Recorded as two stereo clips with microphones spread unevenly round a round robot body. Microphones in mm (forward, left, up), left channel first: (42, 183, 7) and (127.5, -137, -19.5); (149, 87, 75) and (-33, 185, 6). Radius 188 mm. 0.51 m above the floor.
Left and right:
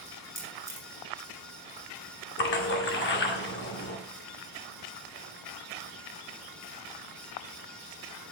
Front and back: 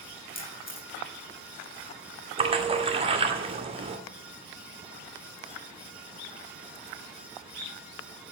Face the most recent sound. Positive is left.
turn(degrees=155)